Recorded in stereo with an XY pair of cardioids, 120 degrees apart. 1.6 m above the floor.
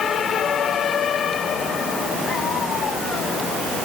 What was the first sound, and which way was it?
Only background noise.